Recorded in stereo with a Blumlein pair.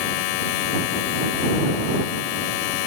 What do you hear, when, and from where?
0.0 s a machine running: 45° left